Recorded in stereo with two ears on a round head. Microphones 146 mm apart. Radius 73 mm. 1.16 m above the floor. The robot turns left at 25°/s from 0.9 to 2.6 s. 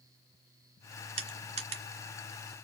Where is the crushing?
35° right (ahead or behind), 1.2 m; by 1.8 s 40° right (ahead or behind), 1.2 m.